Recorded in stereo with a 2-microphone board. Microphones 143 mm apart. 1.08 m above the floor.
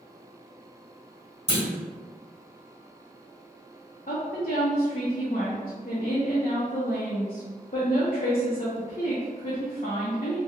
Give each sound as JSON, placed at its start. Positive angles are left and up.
{"t": 1.5, "sound": "a clunk", "side_deg": 45, "distance_m": 1.6}
{"t": 4.1, "sound": "a woman speaking", "side_deg": 65, "distance_m": 0.6}